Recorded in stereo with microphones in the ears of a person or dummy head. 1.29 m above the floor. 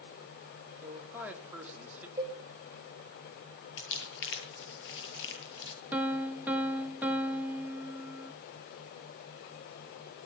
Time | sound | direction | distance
0.8 | a man speaking | 5° right (ahead or behind) | 4 m
2.2 | a cowbell | 15° right (ahead or behind) | 8 m
3.8 | crumpling | 70° left (ahead or behind) | 8.5 m
5.9 | a piano | 5° right (ahead or behind) | 1.7 m